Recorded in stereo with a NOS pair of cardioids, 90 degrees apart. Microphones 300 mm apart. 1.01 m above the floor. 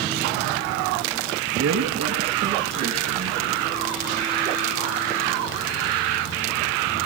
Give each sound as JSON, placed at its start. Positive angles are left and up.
{"t": 1.5, "sound": "a woman speaking", "azimuth_deg": -55, "distance_m": 10.0}